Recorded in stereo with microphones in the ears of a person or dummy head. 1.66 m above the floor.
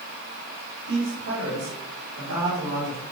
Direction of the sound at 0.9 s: 65° right (ahead or behind).